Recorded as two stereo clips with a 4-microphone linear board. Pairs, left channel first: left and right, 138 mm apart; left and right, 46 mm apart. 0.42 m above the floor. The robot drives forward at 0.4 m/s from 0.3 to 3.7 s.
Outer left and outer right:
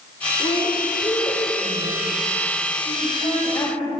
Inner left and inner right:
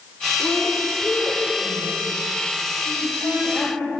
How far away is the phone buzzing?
No phone buzzing in this recording.